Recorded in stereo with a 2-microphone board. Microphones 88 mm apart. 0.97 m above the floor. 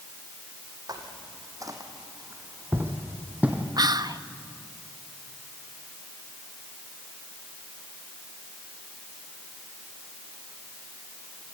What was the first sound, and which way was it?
Footsteps, 50° right (ahead or behind).